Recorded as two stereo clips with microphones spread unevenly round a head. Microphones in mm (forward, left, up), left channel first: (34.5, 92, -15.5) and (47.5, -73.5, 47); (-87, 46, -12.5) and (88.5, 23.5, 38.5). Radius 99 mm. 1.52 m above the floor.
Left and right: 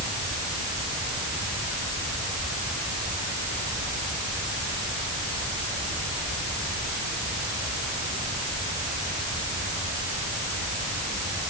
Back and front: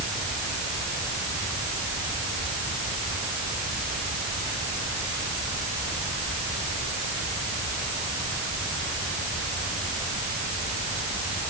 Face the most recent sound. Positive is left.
No sound to turn to.